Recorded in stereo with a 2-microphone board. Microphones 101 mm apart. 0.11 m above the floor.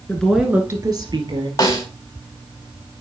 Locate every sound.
0.1 s a woman speaking: 20° left (ahead or behind), 1.1 m; by 1.5 s 55° right (ahead or behind), 2 m
1.6 s a snare drum: 30° left (ahead or behind), 4.5 m